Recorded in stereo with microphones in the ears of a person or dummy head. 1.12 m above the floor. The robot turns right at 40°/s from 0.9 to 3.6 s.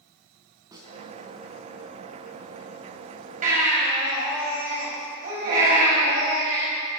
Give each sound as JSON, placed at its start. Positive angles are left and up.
{"t": 0.7, "sound": "a snare drum", "side_deg": -20, "distance_m": 3.0}
{"t": 3.4, "sound": "a baby crying", "side_deg": -45, "distance_m": 5.5}